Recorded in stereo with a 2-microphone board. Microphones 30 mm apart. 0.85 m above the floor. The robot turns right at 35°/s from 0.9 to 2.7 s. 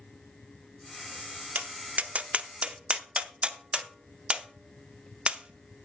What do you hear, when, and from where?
1.6 s tapping: 65° right (ahead or behind), 0.6 m; by 5.9 s 40° right (ahead or behind), 0.6 m